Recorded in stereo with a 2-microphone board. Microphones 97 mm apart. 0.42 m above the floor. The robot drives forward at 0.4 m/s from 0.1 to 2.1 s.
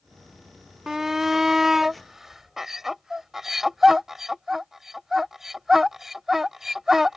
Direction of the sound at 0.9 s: 5° right (ahead or behind).